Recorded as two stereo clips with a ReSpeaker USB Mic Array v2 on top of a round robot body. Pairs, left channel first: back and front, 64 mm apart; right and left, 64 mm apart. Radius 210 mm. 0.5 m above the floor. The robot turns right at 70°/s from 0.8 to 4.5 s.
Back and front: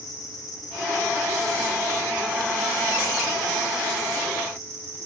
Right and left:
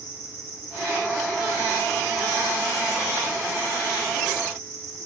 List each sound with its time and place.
0.0 s an insect: 145° left, 9 m; by 5.1 s 45° left, 9 m